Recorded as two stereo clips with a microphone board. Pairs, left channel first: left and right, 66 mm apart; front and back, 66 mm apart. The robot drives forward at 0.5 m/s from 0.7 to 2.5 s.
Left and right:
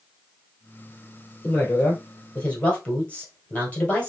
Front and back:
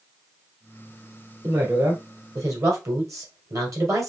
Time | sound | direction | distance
1.4 | a woman speaking | 145° left | 1.7 m